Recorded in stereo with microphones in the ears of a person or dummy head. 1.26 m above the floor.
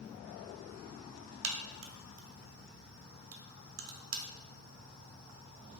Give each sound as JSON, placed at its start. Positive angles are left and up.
{"t": 1.4, "sound": "a crack", "side_deg": -60, "distance_m": 0.6}